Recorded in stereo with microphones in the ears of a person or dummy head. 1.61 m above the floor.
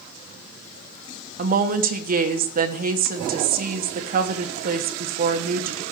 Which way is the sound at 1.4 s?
45° right (ahead or behind).